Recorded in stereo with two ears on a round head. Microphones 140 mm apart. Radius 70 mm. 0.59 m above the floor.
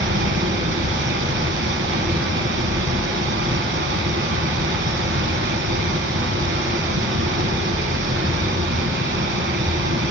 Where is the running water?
80° right, 1.7 m.